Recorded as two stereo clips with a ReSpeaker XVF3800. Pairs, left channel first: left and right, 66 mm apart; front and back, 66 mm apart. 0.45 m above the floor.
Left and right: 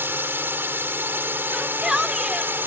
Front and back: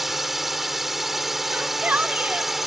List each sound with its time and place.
0.0 s a drone: 95° right
1.5 s a shout: 160° right